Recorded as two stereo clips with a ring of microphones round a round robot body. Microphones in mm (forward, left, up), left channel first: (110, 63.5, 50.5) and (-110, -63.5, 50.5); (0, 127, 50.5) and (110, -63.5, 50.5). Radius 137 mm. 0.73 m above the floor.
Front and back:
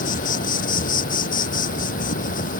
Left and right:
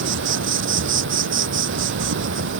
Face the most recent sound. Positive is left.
turn(degrees=-30)